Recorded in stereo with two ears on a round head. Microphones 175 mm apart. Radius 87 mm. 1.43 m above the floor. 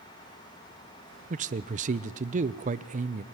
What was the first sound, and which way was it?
A man speaking, 35° right (ahead or behind).